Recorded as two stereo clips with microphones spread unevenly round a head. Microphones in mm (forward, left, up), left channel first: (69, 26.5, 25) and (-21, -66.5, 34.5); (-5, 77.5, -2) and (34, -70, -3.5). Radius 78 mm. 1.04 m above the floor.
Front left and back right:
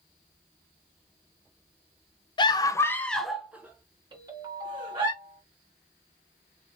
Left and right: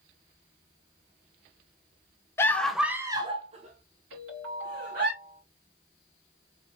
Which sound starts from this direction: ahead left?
A scream, at 2.4 s.